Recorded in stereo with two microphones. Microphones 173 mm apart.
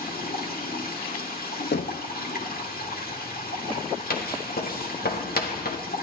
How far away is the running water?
About 2 m.